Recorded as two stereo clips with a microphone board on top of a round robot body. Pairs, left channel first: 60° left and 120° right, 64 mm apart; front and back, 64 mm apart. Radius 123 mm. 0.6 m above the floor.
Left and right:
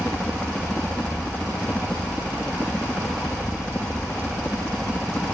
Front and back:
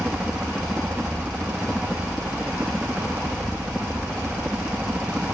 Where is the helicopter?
115° left.